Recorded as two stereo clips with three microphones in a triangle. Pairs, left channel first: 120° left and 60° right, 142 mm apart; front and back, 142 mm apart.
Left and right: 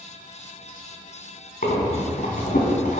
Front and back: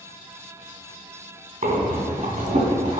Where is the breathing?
145° left, 2.5 m.